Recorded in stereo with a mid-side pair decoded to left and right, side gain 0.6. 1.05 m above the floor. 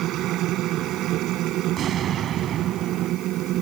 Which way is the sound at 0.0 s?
60° right.